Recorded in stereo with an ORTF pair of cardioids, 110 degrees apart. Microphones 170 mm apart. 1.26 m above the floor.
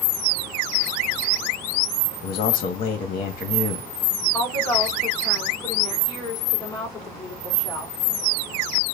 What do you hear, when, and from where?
2.2 s a man speaking: 60° left, 1.6 m
4.3 s a woman speaking: 20° left, 3 m